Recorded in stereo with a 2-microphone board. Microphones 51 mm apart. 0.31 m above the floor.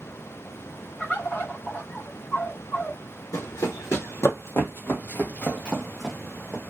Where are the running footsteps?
75° left (ahead or behind), 1.3 m; by 6.6 s centre (ahead or behind), 1.2 m.